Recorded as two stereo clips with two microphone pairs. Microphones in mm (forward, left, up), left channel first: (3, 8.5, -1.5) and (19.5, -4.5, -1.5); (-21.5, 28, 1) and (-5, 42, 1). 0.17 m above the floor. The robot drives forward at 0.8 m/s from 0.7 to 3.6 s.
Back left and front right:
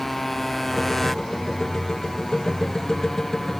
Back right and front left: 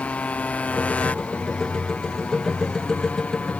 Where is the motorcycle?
135° right; by 3.6 s 140° right.